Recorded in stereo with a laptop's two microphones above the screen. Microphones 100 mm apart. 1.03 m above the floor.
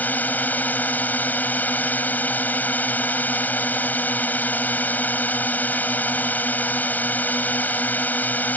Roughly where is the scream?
I don't hear a scream.